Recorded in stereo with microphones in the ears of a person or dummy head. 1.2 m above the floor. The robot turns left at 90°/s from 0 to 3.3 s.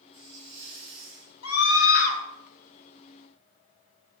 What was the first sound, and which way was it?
A hiss, 20° right.